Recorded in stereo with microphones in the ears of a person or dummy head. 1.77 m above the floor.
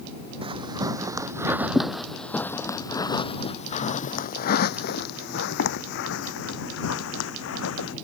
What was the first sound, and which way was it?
Footsteps, 25° right (ahead or behind).